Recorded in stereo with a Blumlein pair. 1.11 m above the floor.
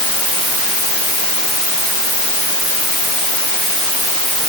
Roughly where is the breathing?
No breathing in this recording.